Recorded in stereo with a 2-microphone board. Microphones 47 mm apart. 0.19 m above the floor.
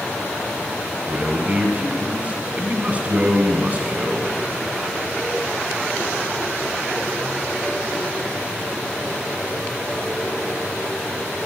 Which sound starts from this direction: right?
A man speaking, at 1.1 s.